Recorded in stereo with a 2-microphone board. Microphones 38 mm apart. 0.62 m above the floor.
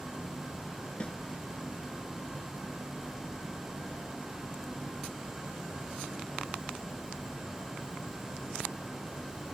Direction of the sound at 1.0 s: 35° left (ahead or behind).